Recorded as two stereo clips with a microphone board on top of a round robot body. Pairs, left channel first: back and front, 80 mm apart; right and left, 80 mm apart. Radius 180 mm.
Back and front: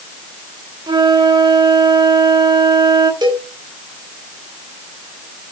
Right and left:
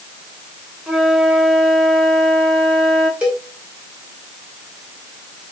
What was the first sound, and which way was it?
A flute, 5° left.